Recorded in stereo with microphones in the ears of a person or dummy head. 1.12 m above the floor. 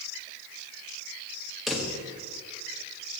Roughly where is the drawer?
Centre.